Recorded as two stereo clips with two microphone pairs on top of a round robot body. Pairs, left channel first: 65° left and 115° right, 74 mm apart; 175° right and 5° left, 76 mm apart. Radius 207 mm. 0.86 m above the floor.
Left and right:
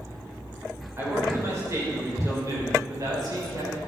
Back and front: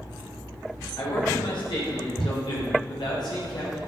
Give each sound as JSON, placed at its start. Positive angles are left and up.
{"t": 1.0, "sound": "a man speaking", "azimuth_deg": -170, "distance_m": 5.0}